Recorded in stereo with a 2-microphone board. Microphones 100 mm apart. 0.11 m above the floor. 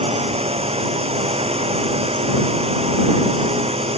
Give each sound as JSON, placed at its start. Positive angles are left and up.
{"t": 0.0, "sound": "a drone", "side_deg": -80}